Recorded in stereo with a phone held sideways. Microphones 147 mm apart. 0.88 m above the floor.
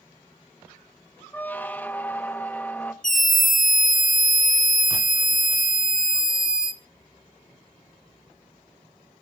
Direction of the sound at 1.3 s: 10° left (ahead or behind).